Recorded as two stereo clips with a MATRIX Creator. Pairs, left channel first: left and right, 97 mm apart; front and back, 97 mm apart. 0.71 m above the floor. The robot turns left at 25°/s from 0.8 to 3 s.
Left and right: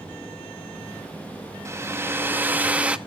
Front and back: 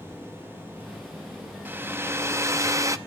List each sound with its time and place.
1.6 s a hair dryer: 125° right, 0.6 m; by 3.0 s 160° right, 0.6 m